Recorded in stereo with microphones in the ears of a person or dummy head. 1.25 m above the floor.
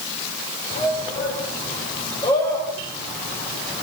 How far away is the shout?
About 5 m.